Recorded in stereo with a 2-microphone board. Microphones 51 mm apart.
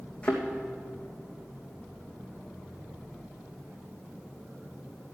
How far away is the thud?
About 2.5 m.